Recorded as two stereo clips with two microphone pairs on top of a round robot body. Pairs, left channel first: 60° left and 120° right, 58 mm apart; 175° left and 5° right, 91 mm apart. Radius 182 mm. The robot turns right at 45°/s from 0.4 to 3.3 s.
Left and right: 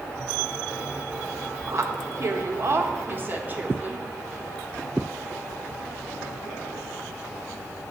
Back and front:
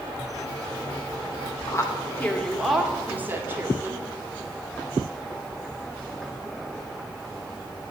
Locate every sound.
1.7 s a woman speaking: 145° right, 1.5 m; by 4.0 s 70° right, 1.5 m